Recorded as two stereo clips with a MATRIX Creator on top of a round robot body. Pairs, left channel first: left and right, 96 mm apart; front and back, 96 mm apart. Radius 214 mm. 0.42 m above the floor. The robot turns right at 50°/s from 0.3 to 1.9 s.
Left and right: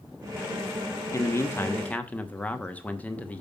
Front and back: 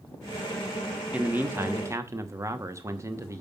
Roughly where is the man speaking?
Behind left.